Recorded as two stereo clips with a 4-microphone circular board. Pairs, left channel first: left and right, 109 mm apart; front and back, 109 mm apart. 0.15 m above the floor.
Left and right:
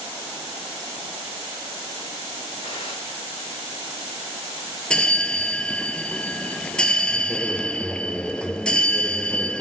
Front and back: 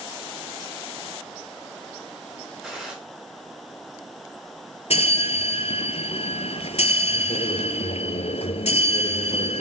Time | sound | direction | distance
2.6 | a gunshot | 95° left | 6 m
4.9 | a bell | 10° left | 0.6 m